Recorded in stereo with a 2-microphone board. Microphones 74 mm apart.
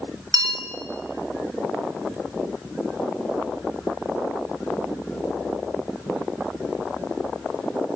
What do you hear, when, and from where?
0.3 s a bell: 65° right (ahead or behind), 2 m